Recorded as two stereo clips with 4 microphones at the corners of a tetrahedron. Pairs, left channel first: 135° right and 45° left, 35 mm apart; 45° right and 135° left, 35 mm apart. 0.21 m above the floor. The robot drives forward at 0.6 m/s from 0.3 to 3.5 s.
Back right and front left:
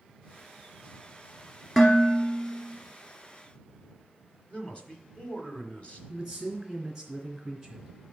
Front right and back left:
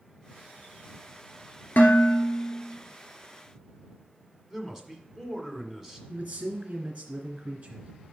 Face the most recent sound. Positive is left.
turn(degrees=120)